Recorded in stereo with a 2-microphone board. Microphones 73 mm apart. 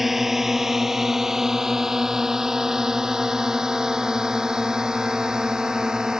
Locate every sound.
0.0 s a drone: 5° right (ahead or behind); by 6.2 s 10° right (ahead or behind)